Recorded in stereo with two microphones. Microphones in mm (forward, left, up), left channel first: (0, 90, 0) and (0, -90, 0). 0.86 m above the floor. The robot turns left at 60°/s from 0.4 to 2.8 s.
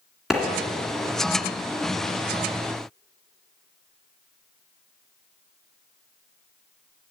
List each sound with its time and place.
0.3 s a clap: 5° right (ahead or behind), 2.0 m